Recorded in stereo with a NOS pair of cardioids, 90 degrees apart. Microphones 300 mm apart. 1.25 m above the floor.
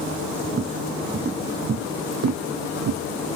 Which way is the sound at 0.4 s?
35° right.